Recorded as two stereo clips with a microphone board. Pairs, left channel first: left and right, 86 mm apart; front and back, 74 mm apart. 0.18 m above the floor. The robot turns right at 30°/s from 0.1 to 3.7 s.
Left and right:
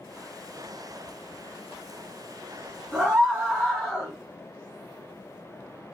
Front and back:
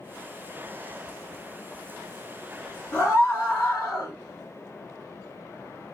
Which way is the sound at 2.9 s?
15° right.